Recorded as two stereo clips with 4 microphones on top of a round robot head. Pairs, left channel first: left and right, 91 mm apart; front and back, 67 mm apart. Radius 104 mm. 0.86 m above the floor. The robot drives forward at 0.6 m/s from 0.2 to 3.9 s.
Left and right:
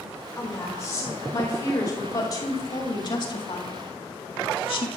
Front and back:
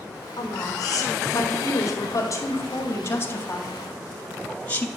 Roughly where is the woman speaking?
Ahead left.